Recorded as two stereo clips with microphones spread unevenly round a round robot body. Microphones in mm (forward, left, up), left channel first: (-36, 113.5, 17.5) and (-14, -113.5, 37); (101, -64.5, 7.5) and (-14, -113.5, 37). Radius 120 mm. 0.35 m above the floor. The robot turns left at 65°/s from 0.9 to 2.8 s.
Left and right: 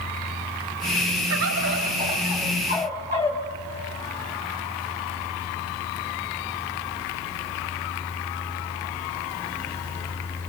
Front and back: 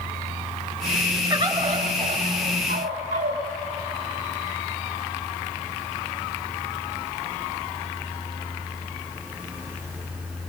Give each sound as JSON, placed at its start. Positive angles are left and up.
{"t": 1.3, "sound": "a bird", "azimuth_deg": -90, "distance_m": 2.0}